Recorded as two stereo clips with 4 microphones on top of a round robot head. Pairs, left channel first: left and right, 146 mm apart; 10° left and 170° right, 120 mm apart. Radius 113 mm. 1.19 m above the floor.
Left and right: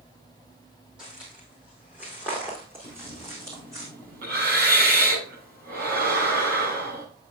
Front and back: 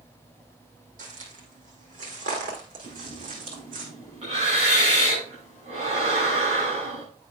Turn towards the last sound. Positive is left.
turn(degrees=-115)